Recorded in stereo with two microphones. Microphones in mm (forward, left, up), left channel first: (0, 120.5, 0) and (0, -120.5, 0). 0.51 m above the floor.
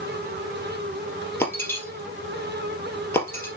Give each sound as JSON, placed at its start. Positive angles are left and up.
{"t": 1.4, "sound": "breaking glass", "side_deg": 10, "distance_m": 3.0}